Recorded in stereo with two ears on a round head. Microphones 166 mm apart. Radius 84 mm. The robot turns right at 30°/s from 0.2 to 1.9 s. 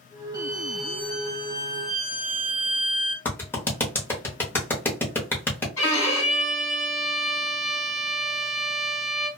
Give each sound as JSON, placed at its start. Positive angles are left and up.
{"t": 0.3, "sound": "a violin", "azimuth_deg": -20, "distance_m": 1.3}
{"t": 3.2, "sound": "a clap", "side_deg": 10, "distance_m": 0.8}
{"t": 5.8, "sound": "a violin", "side_deg": 15, "distance_m": 1.7}